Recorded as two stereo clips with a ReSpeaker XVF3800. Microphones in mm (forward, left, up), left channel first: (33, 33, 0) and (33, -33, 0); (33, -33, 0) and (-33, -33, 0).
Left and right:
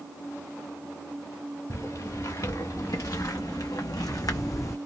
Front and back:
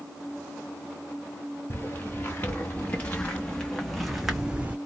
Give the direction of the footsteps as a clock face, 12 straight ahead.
10 o'clock.